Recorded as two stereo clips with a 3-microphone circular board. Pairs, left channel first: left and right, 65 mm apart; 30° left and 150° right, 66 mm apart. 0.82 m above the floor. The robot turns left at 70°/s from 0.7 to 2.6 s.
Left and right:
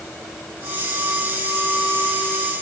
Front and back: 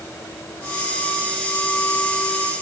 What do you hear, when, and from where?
Only background noise.